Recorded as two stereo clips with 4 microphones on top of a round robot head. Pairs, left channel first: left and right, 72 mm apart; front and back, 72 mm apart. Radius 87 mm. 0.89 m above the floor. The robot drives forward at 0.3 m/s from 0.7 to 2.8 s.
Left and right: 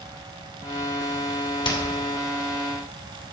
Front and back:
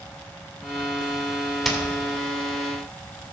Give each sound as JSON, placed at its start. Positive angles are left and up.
{"t": 1.6, "sound": "hammering", "azimuth_deg": 95, "distance_m": 2.5}